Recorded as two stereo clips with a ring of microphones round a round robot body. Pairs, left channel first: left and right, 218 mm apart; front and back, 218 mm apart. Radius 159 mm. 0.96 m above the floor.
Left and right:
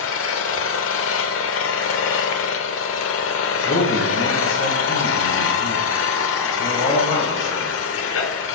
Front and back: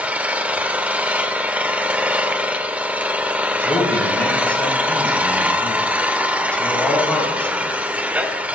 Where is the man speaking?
85° left, 6 m.